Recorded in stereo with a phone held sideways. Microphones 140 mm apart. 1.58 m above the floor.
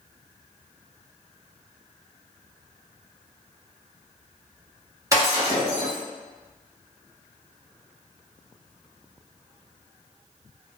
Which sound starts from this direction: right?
Breaking glass, at 5.1 s.